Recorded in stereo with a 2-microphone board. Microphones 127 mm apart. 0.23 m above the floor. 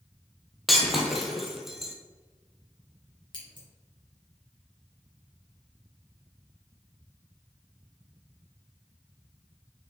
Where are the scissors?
40° left (ahead or behind), 3 m.